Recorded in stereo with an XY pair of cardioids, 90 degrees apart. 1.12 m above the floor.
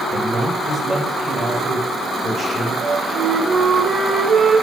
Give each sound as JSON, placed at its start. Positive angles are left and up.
{"t": 0.1, "sound": "a man speaking", "azimuth_deg": -5, "distance_m": 4.5}
{"t": 2.8, "sound": "a flute", "azimuth_deg": -50, "distance_m": 2.5}